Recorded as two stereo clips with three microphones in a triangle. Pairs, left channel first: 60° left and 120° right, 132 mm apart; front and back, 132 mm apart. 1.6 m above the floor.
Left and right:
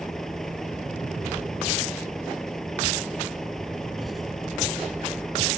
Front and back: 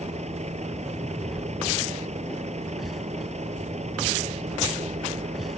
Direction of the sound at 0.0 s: 150° left.